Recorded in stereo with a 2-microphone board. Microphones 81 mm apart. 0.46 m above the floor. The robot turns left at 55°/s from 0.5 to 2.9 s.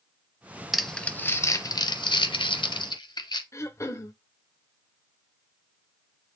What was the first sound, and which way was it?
Crumpling, 5° right (ahead or behind).